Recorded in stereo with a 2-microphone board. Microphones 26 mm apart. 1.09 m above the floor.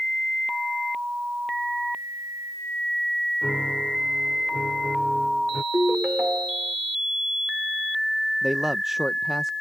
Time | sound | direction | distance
3.4 | a piano | 15° right (ahead or behind) | ?
5.7 | a ringtone | 50° right (ahead or behind) | ?
8.4 | a man speaking | 10° right (ahead or behind) | ?